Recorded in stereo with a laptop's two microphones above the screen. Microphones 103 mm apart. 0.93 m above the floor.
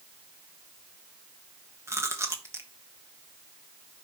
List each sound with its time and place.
1.9 s chewing: 30° right (ahead or behind), 1.1 m